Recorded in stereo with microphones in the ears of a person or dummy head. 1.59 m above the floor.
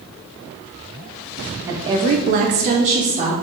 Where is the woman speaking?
15° right (ahead or behind), 0.7 m; by 3.3 s 35° right (ahead or behind), 1.3 m.